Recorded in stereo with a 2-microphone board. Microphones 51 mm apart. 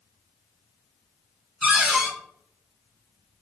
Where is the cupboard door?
5° right (ahead or behind), 1.3 m.